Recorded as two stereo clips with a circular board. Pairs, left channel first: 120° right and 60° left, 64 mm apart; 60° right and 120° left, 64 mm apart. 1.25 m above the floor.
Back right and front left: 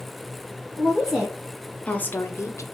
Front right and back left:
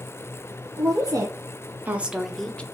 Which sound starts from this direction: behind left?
A woman speaking, at 0.8 s.